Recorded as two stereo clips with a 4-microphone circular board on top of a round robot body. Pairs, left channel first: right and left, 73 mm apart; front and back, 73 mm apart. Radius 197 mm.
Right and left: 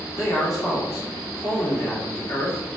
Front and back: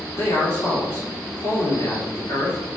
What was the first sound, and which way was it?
A man speaking, 50° right.